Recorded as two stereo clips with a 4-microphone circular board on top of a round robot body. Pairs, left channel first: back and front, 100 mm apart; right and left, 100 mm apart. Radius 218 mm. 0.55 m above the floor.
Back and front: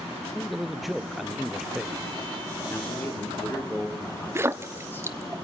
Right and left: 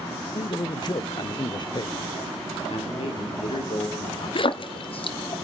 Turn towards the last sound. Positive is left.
turn(degrees=-65)